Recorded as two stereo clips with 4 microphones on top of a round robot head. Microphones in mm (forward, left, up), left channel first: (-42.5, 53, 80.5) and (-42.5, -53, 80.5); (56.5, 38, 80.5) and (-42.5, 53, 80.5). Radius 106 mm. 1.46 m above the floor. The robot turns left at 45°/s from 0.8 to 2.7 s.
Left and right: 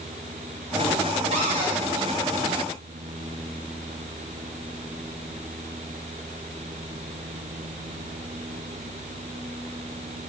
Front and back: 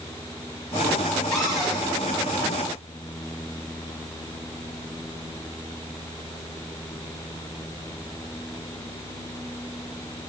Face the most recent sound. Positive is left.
turn(degrees=-155)